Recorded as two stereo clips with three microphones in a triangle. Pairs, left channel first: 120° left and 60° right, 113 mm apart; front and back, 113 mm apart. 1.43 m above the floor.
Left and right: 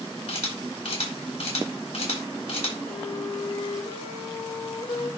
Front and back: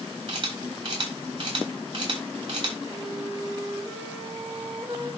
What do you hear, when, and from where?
0.3 s a camera shutter: 135° left, 8.5 m
2.9 s a flute: 110° left, 4 m